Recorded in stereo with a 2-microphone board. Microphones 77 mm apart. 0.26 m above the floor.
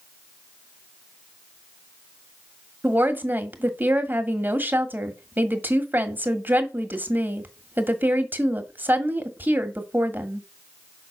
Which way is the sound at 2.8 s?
25° right (ahead or behind).